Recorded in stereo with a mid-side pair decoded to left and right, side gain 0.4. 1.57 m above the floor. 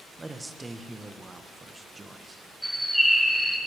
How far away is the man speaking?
About 1.4 m.